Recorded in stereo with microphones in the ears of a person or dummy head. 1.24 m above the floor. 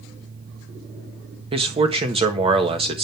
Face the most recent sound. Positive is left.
turn(degrees=-25)  # may be behind; listen again after turning